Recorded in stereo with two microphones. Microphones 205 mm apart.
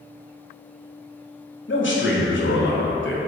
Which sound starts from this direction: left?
A man speaking, at 1.7 s.